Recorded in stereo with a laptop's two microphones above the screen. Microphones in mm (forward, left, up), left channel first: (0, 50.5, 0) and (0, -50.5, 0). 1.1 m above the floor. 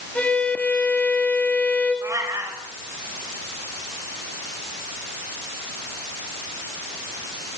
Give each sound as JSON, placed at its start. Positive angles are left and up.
{"t": 0.1, "sound": "a violin", "side_deg": 15, "distance_m": 6.0}
{"t": 2.0, "sound": "a cat meowing", "side_deg": -30, "distance_m": 3.5}